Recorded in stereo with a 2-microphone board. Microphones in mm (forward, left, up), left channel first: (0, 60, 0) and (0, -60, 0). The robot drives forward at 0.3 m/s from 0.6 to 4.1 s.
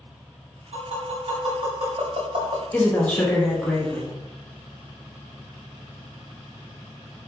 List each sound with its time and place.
0.7 s tapping: 70° right (ahead or behind), 1.8 m; by 2.6 s 65° right (ahead or behind), 1.9 m
2.7 s a woman speaking: 15° left (ahead or behind), 0.8 m; by 4.1 s 10° left (ahead or behind), 1.2 m